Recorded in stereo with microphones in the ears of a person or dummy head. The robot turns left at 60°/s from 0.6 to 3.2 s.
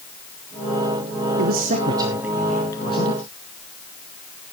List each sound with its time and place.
1.4 s a man speaking: 120° right, 1.1 m; by 3.2 s 135° left, 1.1 m